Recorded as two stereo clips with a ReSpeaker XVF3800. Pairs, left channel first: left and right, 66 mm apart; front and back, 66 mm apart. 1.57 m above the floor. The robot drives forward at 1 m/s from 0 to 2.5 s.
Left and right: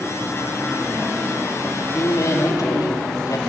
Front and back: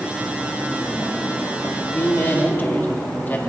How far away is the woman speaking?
About 3.5 m.